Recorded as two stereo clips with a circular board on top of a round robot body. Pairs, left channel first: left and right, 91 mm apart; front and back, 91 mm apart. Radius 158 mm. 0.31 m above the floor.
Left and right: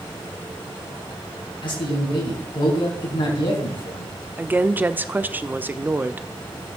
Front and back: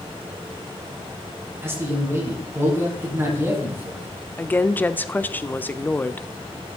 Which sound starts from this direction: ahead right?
A woman speaking, at 4.4 s.